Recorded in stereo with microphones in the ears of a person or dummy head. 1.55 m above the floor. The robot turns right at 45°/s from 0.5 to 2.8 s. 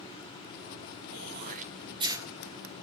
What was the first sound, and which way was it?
Throat clearing, 65° right (ahead or behind).